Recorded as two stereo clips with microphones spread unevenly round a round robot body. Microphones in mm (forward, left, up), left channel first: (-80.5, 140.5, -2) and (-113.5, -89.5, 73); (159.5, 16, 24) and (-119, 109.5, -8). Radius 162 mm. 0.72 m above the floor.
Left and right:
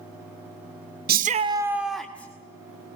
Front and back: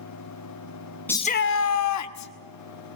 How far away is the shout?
About 0.7 m.